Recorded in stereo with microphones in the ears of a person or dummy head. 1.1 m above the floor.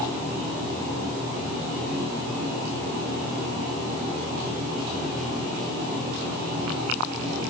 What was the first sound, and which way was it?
Only background noise.